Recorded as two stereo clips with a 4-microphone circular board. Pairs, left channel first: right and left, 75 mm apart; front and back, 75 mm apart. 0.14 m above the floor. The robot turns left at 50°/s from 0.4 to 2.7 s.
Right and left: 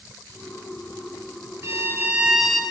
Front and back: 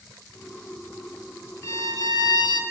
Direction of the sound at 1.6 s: 40° left.